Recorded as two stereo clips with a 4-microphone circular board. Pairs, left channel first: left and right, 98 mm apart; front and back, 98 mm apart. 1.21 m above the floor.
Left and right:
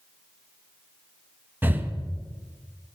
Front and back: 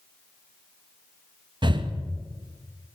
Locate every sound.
1.6 s breathing: 155° right, 0.6 m